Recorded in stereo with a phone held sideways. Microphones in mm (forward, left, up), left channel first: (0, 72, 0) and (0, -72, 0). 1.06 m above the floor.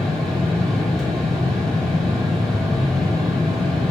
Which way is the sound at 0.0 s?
5° left (ahead or behind).